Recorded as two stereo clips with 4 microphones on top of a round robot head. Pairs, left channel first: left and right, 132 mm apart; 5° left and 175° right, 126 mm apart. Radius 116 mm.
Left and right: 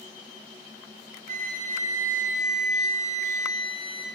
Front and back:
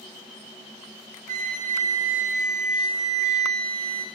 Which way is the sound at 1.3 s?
135° right.